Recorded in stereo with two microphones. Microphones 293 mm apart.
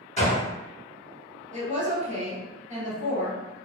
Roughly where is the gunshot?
Left.